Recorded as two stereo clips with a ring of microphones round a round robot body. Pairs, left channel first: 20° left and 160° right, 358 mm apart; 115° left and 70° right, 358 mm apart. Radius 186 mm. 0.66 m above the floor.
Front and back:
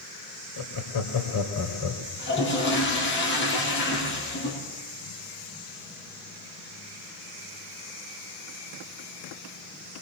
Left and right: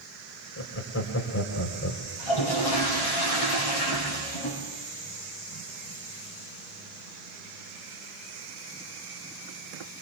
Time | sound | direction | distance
0.6 | laughter | 55° left | 2.5 m
2.2 | a toilet flushing | 85° left | 4.5 m